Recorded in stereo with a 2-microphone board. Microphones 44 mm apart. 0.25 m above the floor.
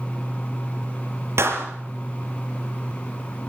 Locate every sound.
1.4 s a clap: 70° right (ahead or behind), 5 m